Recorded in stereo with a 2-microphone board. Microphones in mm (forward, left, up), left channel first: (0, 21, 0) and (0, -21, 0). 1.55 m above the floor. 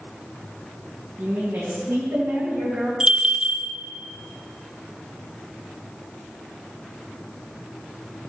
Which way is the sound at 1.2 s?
75° right (ahead or behind).